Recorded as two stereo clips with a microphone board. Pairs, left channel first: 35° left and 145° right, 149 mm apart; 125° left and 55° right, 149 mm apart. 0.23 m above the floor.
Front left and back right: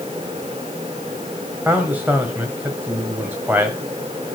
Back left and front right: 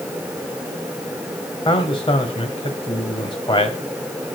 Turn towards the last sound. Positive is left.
turn(degrees=145)